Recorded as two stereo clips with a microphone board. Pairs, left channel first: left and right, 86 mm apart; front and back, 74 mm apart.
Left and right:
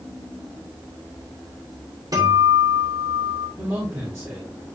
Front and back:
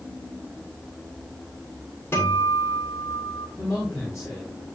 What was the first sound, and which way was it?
A guitar, 50° right.